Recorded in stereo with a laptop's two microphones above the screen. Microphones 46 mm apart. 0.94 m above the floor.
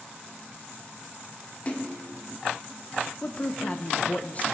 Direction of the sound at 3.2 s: 30° left (ahead or behind).